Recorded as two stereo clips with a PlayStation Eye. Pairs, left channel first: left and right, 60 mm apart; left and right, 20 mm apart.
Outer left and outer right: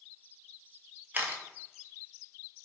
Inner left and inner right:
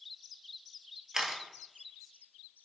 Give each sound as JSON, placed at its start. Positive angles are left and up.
{"t": 1.1, "sound": "a camera shutter", "side_deg": -30, "distance_m": 0.5}